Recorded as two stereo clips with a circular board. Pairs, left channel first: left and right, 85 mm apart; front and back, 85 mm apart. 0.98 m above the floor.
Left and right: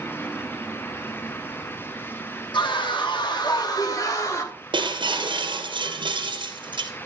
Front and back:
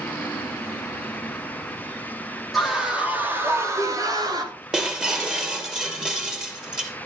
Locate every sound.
2.5 s a scream: 90° left, 2.5 m; by 4.6 s 145° left, 3.5 m
4.7 s breaking glass: 100° right, 2.5 m